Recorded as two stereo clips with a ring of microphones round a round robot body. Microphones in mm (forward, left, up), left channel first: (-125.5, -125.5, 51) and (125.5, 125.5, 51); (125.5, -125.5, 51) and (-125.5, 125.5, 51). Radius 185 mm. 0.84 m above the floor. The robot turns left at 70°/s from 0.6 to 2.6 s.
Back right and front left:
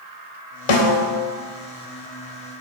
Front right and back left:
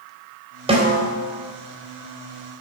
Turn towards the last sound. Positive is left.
turn(degrees=75)